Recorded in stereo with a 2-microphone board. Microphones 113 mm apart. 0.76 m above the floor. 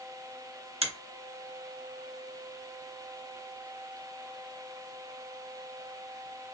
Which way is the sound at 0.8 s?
60° right (ahead or behind).